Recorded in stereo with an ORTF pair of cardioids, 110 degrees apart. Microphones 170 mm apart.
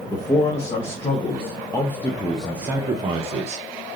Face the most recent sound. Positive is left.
turn(degrees=-55)